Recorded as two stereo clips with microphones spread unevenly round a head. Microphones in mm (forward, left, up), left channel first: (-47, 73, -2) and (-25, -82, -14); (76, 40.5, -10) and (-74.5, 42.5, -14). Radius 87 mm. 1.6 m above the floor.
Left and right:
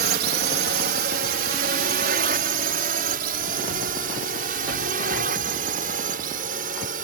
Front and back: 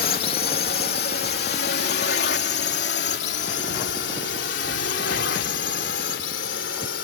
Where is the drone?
45° right; by 7.0 s 35° right.